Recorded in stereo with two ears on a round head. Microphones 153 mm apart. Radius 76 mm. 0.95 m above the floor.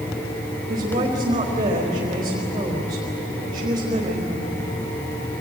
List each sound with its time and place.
0.7 s a woman speaking: 25° right (ahead or behind), 4 m